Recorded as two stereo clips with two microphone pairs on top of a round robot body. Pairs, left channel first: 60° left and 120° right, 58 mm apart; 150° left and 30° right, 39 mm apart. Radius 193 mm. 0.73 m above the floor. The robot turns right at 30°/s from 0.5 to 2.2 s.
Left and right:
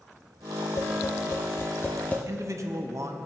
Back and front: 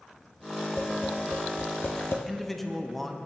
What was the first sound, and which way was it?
Tapping, 80° left.